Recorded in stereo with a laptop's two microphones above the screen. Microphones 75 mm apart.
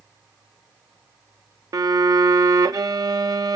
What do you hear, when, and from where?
1.7 s a violin: 55° right (ahead or behind), 0.8 m